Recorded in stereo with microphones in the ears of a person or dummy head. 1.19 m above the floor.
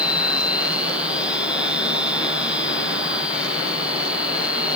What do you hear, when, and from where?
0.0 s a machine running: 5° right (ahead or behind)